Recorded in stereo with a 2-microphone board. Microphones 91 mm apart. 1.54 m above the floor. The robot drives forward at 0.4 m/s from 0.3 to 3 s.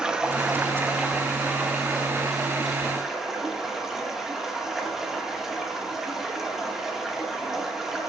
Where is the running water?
10° right (ahead or behind), 1.1 m; by 8.1 s 5° right (ahead or behind), 2 m.